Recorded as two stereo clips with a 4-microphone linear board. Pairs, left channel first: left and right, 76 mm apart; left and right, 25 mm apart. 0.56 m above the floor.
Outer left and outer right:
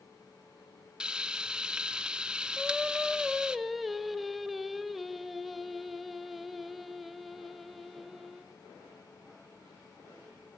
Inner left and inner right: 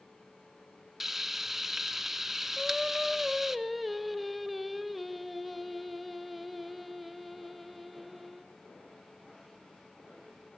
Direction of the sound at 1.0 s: 10° right (ahead or behind).